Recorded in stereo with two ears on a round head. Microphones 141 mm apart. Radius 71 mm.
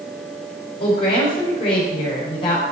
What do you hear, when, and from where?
0.8 s a woman speaking: 35° left (ahead or behind), 6 m